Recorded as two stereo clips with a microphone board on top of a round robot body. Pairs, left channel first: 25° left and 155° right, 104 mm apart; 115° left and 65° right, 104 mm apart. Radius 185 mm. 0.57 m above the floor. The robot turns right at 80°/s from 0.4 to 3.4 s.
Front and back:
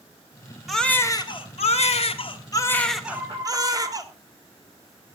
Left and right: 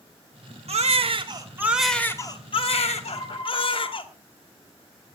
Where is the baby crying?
70° right, 1.6 m; by 4.0 s 150° left, 1.6 m.